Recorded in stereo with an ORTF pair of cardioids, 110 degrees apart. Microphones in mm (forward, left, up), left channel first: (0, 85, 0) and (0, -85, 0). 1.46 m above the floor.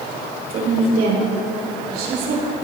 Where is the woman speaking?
70° right, 5.5 m.